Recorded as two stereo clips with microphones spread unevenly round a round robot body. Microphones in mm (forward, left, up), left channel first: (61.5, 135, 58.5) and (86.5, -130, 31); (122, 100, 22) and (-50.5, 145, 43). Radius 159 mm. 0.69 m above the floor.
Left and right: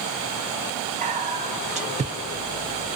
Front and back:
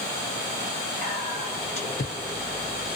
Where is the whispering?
35° right, 0.8 m.